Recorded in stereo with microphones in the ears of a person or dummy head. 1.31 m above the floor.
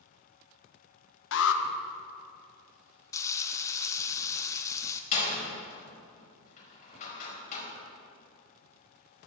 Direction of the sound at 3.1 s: 15° left (ahead or behind).